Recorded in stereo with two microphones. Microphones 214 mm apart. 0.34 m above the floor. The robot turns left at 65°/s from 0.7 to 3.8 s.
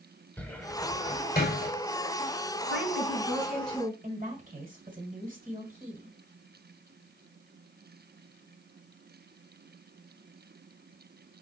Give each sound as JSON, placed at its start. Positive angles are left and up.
{"t": 0.4, "sound": "a cupboard door", "side_deg": 5, "distance_m": 0.6}
{"t": 2.7, "sound": "a woman speaking", "azimuth_deg": -120, "distance_m": 2.5}
{"t": 4.0, "sound": "a woman speaking", "side_deg": -40, "distance_m": 1.8}